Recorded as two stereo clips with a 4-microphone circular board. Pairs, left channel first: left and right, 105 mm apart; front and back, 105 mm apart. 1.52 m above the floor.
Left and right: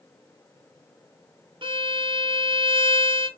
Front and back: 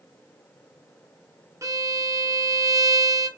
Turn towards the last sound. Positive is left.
turn(degrees=-120)